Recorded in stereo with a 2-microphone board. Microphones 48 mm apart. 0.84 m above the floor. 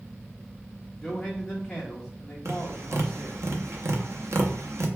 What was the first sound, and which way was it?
A man speaking, 15° left (ahead or behind).